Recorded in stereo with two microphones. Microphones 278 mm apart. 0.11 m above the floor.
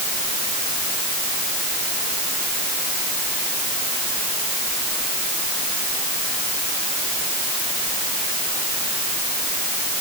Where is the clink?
I don't hear a clink.